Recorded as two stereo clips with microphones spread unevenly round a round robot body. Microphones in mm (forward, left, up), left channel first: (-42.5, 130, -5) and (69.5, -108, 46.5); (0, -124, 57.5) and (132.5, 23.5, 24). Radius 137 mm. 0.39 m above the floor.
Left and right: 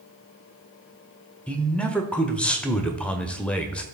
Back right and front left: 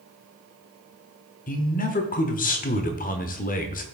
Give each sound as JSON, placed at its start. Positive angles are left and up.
{"t": 1.5, "sound": "a man speaking", "azimuth_deg": -175, "distance_m": 1.1}